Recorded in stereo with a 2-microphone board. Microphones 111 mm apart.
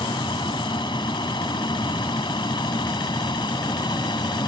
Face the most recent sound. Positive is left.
turn(degrees=45)  # may be behind; listen again after turning